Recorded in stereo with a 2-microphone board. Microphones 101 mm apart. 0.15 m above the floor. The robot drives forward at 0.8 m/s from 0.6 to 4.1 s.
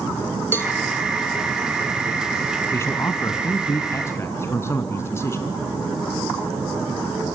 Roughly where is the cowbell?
Left.